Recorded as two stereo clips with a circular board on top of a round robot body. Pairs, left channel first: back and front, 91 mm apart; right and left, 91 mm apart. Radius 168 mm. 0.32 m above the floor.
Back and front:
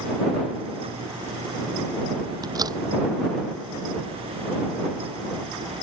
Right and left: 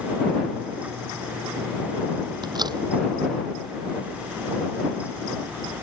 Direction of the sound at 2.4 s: 45° left.